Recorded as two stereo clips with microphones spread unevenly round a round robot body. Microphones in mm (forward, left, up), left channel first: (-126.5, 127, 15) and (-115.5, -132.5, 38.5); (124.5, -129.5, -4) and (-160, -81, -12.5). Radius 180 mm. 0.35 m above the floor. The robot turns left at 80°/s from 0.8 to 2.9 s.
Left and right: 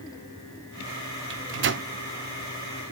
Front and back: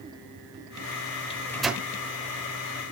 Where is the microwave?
75° right, 0.9 m; by 1.9 s 120° right, 0.9 m.